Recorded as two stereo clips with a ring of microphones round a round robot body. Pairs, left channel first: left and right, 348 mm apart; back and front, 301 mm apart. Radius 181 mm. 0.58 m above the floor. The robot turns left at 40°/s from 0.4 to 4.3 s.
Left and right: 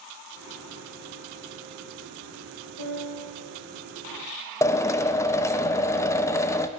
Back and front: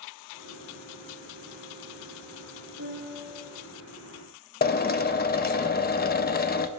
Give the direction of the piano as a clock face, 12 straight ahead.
2 o'clock.